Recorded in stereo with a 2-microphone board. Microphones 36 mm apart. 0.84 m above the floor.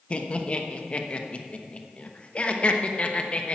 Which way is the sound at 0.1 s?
30° left (ahead or behind).